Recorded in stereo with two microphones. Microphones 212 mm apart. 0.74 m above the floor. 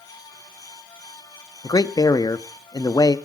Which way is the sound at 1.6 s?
20° left (ahead or behind).